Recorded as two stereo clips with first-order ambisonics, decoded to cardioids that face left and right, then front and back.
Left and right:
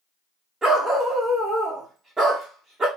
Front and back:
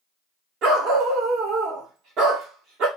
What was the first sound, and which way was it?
A dog barking, 165° right.